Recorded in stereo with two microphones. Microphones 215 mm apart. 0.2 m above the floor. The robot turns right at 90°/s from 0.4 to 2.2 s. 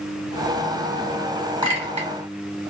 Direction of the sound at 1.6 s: 25° right (ahead or behind).